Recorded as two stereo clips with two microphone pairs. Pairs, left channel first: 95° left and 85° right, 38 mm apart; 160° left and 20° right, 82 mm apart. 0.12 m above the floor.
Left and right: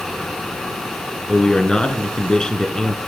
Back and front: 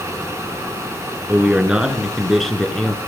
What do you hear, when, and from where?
1.3 s a man speaking: 35° left, 1.9 m; by 3.0 s 105° left, 1.7 m